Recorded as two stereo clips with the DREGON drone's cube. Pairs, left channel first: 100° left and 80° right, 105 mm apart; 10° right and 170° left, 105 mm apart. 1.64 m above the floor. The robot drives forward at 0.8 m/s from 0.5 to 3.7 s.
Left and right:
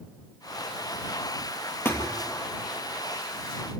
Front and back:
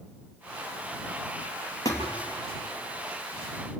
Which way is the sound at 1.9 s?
35° left.